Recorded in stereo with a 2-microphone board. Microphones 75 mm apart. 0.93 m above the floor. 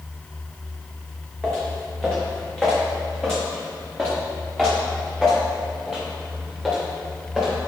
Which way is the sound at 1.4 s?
10° left (ahead or behind).